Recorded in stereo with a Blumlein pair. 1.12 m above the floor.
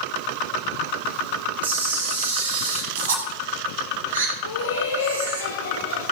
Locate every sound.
1.6 s a camera shutter: 70° right, 5 m
4.4 s laughter: 70° left, 2.5 m